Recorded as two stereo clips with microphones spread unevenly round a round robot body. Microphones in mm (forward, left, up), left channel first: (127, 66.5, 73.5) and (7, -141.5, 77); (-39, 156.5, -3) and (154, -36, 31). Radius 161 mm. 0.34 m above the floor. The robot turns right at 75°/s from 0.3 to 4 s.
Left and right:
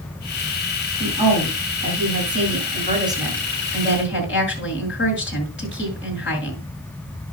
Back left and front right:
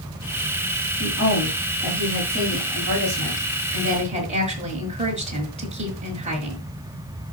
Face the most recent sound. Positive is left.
turn(degrees=20)